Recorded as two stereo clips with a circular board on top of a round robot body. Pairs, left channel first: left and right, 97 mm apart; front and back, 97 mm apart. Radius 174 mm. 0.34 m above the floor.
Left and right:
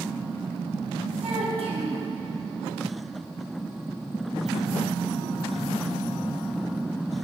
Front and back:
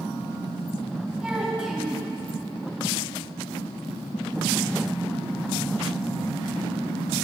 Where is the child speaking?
100° right, 1.8 m.